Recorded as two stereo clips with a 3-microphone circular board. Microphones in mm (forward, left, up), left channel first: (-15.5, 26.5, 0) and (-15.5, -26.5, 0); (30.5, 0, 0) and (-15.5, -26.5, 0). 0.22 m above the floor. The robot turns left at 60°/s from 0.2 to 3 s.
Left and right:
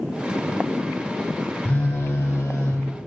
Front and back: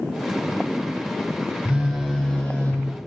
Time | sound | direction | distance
1.6 | a phone buzzing | 140° left | 3.5 m